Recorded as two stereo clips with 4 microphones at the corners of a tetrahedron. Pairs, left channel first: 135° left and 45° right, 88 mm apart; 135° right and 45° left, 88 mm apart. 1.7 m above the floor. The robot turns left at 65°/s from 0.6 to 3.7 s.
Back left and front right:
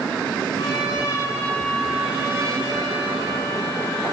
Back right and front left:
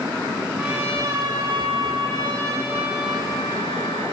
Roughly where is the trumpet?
Behind left.